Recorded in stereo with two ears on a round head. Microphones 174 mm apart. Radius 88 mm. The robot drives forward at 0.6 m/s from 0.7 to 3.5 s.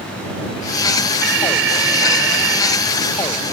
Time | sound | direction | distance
1.2 | an alarm | 60° right (ahead or behind) | ?